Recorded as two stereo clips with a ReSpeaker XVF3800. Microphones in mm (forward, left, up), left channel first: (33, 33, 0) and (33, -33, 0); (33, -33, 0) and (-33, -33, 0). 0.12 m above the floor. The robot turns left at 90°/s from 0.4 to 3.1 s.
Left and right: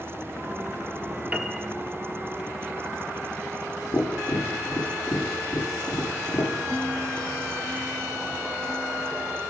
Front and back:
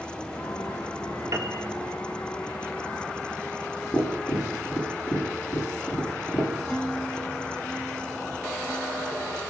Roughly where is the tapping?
Ahead left.